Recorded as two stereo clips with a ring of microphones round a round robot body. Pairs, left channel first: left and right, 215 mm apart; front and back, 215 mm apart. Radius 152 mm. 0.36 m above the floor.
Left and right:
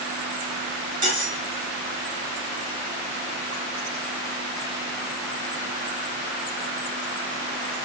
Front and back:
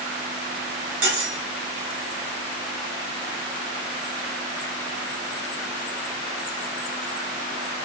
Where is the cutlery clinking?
145° right, 1.0 m.